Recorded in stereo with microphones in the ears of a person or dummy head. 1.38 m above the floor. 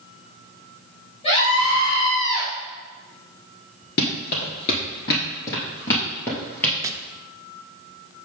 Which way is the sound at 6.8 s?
20° right (ahead or behind).